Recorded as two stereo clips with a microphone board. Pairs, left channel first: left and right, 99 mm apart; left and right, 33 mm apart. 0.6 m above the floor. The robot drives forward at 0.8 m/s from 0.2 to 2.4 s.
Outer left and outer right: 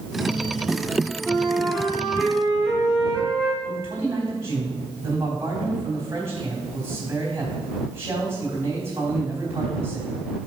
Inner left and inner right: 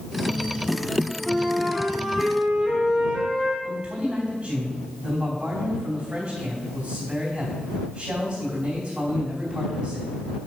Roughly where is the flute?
Centre.